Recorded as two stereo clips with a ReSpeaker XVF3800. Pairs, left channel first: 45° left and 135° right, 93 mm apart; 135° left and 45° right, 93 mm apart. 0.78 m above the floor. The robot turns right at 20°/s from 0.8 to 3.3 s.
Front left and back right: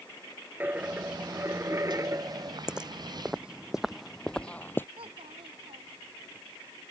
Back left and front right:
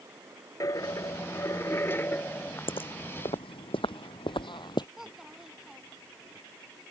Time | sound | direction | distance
0.6 | a dropped coin | 165° left | ?
2.7 | footsteps | 140° left | ?
5.0 | a child speaking | 130° right | ?